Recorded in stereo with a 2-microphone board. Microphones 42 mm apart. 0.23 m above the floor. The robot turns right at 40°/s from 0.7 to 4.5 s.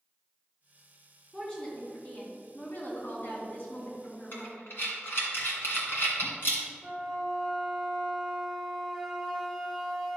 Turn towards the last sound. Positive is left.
turn(degrees=0)  # may be behind; listen again after turning